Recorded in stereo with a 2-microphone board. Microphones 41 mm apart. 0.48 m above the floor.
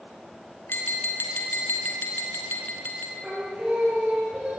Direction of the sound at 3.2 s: 30° right (ahead or behind).